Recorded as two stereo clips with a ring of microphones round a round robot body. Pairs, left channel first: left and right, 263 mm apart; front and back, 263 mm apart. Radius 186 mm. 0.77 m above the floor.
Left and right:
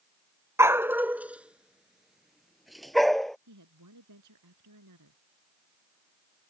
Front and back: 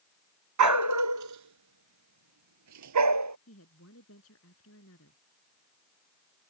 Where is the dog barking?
170° right; by 3.4 s straight behind.